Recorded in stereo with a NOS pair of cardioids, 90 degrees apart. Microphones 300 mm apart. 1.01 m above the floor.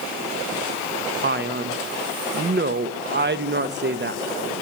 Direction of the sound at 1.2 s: 40° right.